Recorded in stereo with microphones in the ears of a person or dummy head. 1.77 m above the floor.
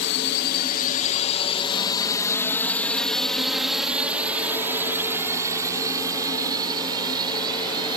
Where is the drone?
60° left (ahead or behind); by 8.0 s 25° right (ahead or behind).